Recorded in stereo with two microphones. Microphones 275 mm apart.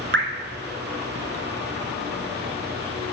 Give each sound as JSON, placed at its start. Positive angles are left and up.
{"t": 0.1, "sound": "dripping", "side_deg": -45, "distance_m": 1.3}